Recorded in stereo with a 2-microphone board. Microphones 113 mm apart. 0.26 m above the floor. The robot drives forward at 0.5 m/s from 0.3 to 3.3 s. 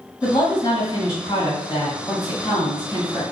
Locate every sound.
0.2 s a woman speaking: 35° left (ahead or behind), 1.9 m